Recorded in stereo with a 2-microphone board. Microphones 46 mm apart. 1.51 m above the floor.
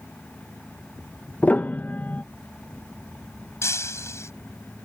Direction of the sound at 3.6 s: 80° left.